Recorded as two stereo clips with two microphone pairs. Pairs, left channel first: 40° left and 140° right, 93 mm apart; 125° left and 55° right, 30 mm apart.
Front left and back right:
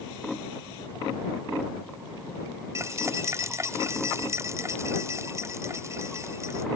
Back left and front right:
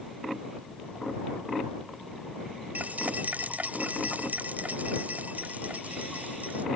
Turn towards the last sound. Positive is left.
turn(degrees=-85)